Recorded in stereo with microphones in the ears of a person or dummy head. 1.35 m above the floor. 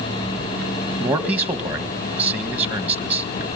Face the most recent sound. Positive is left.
turn(degrees=-10)  # may be behind; listen again after turning